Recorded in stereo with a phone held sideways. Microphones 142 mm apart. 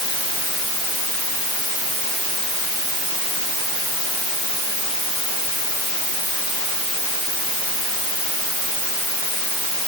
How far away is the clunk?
I don't hear a clunk.